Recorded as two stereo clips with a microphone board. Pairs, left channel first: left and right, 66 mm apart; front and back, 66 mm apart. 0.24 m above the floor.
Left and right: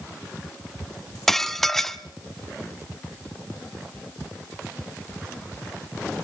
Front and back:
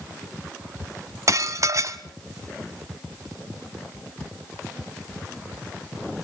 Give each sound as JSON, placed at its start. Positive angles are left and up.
{"t": 1.3, "sound": "dishes clattering", "azimuth_deg": 175, "distance_m": 1.1}